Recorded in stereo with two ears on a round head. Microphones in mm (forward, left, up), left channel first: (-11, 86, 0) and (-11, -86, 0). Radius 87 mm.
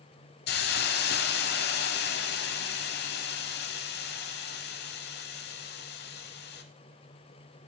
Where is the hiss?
60° left (ahead or behind), 0.8 m.